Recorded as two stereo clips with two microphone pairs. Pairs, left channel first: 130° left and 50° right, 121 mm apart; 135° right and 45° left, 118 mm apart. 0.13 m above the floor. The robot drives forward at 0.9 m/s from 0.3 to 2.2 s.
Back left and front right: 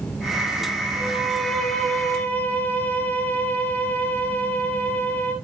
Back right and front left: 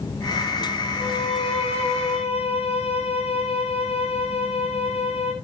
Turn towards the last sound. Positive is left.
turn(degrees=-155)